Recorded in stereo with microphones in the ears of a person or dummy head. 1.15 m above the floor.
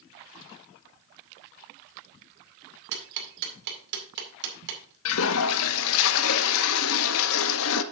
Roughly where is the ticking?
Right.